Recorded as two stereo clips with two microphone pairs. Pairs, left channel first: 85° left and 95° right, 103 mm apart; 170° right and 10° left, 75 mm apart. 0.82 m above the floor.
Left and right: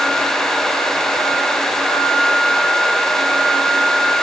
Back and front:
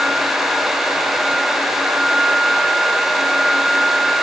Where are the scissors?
I don't hear scissors.